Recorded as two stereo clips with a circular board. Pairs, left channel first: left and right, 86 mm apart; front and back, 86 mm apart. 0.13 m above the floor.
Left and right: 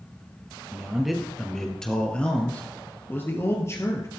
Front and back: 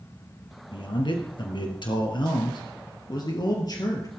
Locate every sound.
0.7 s a man speaking: 10° right, 2.5 m; by 4.1 s 40° left, 2.5 m